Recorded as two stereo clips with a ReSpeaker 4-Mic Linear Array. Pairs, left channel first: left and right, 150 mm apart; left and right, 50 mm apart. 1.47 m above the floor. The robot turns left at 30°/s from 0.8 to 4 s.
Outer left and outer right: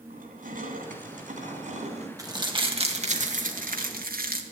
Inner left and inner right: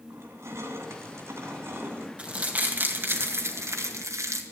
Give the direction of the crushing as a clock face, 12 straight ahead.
3 o'clock.